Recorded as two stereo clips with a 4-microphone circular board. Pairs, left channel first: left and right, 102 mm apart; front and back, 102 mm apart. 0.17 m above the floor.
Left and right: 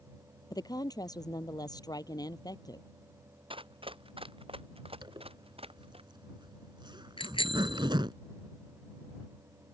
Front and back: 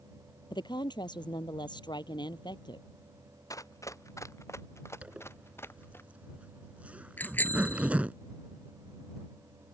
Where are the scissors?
I don't hear scissors.